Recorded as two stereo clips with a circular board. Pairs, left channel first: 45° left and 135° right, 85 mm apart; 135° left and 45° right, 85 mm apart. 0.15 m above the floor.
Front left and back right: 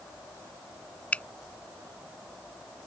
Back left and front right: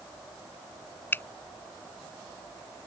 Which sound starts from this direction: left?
A finger snap, at 1.1 s.